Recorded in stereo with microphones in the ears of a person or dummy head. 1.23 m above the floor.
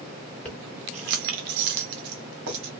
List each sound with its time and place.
0.5 s keys jangling: 5° left (ahead or behind), 0.6 m; by 2.7 s 60° right (ahead or behind), 1.5 m